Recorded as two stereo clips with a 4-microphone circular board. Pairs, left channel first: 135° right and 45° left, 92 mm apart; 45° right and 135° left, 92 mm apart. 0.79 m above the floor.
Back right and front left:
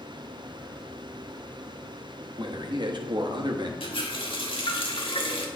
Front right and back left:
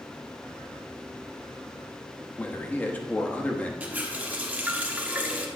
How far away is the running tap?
About 1.2 m.